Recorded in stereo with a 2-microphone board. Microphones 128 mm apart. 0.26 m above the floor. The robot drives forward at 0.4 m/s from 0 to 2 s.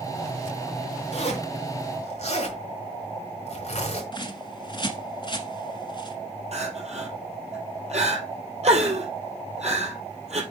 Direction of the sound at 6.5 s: 55° right (ahead or behind).